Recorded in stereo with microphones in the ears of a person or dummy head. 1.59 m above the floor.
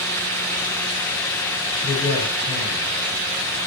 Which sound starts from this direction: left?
A man speaking, at 1.8 s.